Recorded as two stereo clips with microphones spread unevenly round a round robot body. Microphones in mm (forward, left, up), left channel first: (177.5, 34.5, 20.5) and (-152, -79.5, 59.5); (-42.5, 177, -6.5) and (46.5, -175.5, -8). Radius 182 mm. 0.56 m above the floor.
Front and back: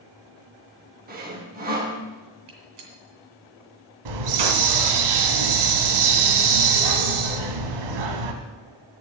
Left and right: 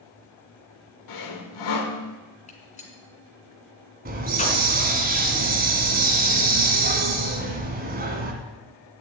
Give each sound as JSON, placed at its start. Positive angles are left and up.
{"t": 1.1, "sound": "sawing", "azimuth_deg": 135, "distance_m": 1.9}
{"t": 2.5, "sound": "a gunshot", "azimuth_deg": 175, "distance_m": 2.5}
{"t": 4.0, "sound": "a hiss", "azimuth_deg": -145, "distance_m": 1.5}